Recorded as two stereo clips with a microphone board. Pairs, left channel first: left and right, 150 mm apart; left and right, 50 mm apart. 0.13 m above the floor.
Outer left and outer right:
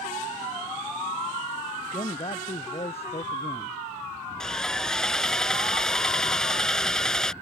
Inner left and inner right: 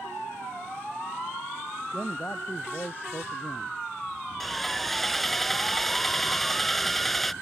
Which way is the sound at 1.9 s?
40° left (ahead or behind).